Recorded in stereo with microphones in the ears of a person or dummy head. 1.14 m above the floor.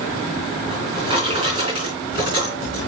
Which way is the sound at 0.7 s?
35° right (ahead or behind).